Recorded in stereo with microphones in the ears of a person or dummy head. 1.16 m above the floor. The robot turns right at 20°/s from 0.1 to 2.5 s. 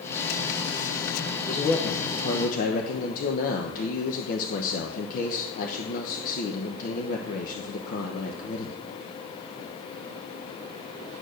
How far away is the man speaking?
About 0.9 m.